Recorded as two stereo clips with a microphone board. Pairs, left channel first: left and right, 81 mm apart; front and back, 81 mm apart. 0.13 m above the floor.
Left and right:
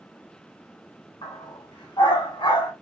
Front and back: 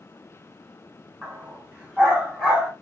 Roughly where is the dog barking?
Left.